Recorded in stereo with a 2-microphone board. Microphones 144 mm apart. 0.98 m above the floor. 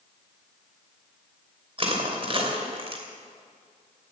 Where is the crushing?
40° right (ahead or behind), 2.5 m.